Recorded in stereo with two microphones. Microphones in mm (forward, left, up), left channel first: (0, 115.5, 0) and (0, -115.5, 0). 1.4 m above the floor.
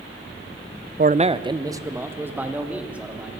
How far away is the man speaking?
About 0.6 m.